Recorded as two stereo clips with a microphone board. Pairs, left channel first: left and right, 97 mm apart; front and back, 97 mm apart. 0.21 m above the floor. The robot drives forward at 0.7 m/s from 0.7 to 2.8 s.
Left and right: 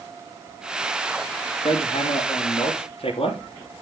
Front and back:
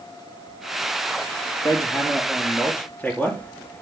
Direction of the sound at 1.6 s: 60° left.